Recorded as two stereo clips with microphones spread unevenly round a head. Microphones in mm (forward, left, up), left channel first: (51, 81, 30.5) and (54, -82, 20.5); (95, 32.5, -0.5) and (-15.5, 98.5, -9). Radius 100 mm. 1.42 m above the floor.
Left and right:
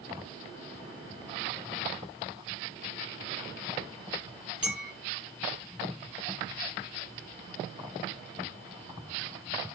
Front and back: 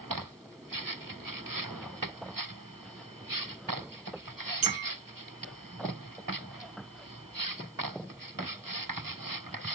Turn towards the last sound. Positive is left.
turn(degrees=-175)